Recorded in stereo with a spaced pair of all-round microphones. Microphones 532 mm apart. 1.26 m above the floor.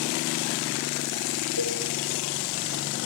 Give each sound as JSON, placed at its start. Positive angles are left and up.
{"t": 1.6, "sound": "a cowbell", "side_deg": 50, "distance_m": 4.0}